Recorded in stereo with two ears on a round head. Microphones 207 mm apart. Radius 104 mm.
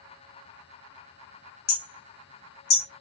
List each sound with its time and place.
1.7 s hammering: 60° left (ahead or behind), 0.7 m